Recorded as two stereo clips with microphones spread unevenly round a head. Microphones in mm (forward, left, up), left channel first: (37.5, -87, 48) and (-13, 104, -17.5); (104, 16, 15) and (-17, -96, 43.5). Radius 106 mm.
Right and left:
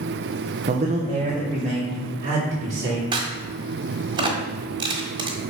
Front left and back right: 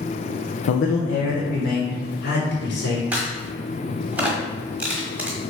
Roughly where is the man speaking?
Ahead left.